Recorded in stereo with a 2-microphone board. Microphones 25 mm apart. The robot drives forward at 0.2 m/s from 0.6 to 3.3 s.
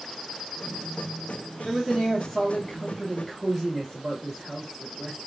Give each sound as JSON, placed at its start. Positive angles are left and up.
{"t": 1.6, "sound": "a man speaking", "side_deg": 0, "distance_m": 1.6}